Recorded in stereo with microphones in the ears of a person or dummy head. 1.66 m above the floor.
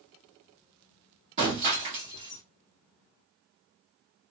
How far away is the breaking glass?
About 1.2 m.